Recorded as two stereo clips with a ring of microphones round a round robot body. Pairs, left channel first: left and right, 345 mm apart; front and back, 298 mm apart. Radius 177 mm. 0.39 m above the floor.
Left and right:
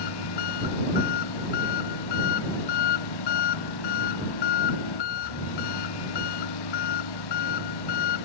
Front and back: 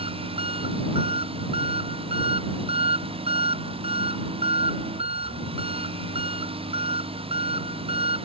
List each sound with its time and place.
0.0 s an engine running: 110° left